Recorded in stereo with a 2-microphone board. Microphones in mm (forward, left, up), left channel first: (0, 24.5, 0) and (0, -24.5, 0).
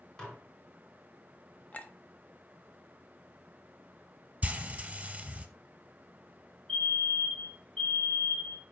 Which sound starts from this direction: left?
A clink, at 1.7 s.